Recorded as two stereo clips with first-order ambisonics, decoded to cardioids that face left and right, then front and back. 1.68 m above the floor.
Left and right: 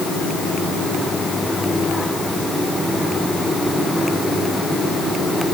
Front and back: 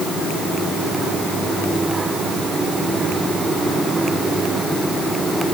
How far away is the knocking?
No knocking in this recording.